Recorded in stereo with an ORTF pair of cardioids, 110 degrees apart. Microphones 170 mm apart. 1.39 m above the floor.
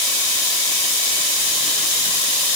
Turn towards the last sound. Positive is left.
No sound to turn to.